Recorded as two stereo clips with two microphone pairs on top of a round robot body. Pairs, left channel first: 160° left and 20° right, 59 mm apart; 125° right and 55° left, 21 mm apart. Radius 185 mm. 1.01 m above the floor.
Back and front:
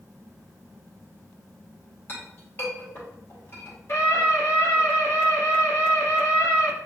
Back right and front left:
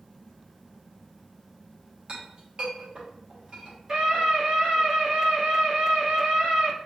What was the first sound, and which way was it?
A clink, 105° left.